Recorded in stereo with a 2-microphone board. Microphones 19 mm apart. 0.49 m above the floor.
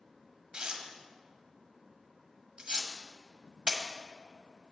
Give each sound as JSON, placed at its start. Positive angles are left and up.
{"t": 0.5, "sound": "tearing paper", "side_deg": -50, "distance_m": 1.3}